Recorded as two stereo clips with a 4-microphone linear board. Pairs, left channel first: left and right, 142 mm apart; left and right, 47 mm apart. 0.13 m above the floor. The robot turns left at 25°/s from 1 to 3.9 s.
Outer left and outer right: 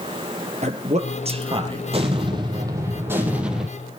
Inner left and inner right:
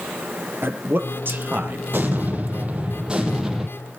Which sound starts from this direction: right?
A man speaking, at 0.6 s.